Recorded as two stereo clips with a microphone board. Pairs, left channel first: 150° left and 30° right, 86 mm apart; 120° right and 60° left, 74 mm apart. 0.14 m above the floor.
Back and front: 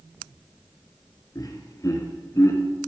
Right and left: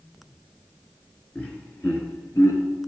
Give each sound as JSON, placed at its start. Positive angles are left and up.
{"t": 1.4, "sound": "laughter", "azimuth_deg": 170, "distance_m": 2.0}